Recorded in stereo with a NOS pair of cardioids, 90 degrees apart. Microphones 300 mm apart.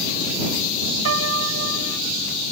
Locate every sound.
1.1 s a piano: 55° right